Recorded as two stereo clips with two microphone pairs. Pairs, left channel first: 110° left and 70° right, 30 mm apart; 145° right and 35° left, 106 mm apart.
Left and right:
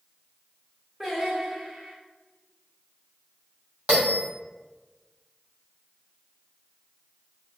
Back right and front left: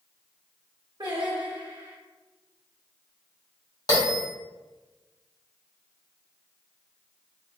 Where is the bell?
105° right, 1.5 m.